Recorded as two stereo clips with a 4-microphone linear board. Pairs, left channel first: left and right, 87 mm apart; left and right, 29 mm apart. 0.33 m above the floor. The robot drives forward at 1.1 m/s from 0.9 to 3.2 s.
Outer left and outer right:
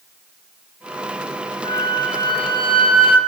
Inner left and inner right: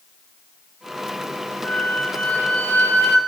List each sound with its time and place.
1.6 s a flute: 50° left (ahead or behind), 2 m; by 3.2 s 80° left, 1.8 m